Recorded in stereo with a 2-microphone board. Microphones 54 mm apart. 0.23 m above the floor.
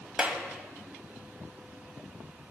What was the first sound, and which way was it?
A clap, 20° right (ahead or behind).